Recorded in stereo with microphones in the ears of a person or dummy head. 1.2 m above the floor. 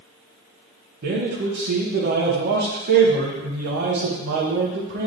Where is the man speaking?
50° right (ahead or behind), 0.7 m.